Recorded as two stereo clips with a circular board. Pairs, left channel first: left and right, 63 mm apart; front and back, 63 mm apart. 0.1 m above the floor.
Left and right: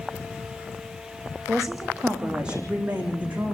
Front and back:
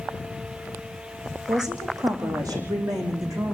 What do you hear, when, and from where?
1.5 s a woman speaking: 175° right, 4.5 m; by 3.5 s 150° right, 6 m